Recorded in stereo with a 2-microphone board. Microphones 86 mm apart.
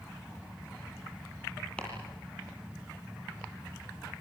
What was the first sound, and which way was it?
Chopping, 15° left (ahead or behind).